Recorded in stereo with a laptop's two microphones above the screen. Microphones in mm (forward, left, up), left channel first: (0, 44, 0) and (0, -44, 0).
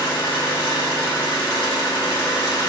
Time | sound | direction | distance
0.0 | an engine running | 65° left (ahead or behind) | 1.6 m